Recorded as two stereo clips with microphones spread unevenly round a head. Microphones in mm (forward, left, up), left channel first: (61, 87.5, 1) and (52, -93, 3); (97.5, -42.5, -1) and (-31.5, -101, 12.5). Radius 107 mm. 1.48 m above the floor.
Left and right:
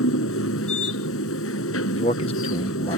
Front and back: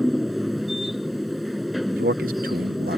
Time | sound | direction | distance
0.0 | a machine running | 115° left | ?
1.9 | a man speaking | 155° left | ?